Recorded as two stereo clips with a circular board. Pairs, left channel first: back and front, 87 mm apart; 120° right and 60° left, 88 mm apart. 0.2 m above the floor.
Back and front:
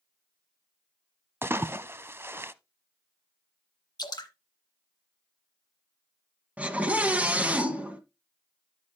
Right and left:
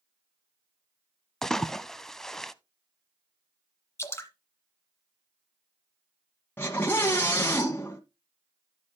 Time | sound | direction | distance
1.4 | a splash | 40° right | 0.5 m
4.0 | dripping | 170° right | 1.7 m
6.6 | a scream | 65° right | 1.6 m